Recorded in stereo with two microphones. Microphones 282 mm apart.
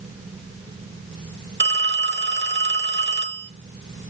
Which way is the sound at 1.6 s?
40° right (ahead or behind).